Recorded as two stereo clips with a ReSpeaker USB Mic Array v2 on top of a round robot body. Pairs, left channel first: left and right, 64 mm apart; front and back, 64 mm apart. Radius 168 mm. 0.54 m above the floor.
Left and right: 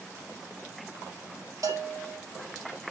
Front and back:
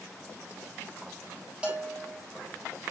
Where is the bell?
110° right, 3.5 m.